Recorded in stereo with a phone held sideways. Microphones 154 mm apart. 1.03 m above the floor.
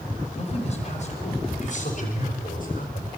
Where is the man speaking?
45° left (ahead or behind), 5.5 m; by 3.1 s 70° left (ahead or behind), 5 m.